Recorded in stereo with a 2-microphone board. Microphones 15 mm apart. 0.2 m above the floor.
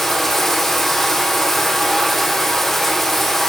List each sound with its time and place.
0.0 s running water: 20° left (ahead or behind), 3 m